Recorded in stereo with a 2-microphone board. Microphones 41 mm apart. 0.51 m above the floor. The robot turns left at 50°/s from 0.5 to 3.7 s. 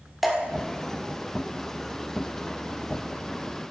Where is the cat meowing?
I don't hear a cat meowing.